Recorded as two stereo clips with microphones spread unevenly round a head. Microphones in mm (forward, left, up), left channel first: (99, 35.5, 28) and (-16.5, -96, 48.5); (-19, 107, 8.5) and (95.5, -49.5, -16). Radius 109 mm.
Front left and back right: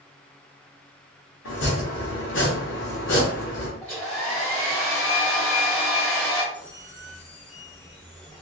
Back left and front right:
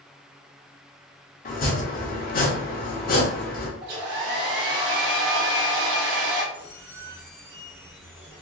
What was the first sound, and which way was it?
Chopping, 90° left.